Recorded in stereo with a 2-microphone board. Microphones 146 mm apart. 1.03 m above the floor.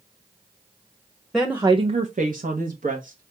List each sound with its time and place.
1.3 s a woman speaking: centre (ahead or behind), 0.7 m; by 3.3 s 65° right (ahead or behind), 1.6 m